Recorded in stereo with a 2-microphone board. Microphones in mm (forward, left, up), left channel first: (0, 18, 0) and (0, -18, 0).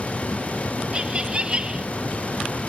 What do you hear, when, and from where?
0.9 s laughter: 25° right (ahead or behind)